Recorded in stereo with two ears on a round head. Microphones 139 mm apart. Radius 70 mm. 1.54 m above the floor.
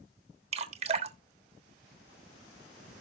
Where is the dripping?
40° right (ahead or behind), 1.3 m.